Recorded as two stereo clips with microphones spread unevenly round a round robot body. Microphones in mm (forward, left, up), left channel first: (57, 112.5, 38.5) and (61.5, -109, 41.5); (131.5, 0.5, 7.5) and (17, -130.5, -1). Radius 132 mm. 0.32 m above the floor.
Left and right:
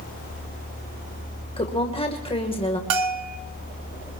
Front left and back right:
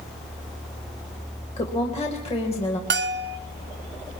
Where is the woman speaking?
55° left, 1.5 m.